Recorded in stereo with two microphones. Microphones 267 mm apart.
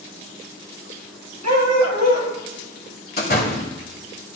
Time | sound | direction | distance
1.4 | a dog barking | 80° right | 2 m
3.2 | a door slam | 35° left (ahead or behind) | 1.5 m